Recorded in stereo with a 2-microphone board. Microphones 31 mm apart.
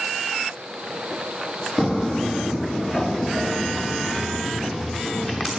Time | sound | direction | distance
1.8 | footsteps | 15° right (ahead or behind) | 0.8 m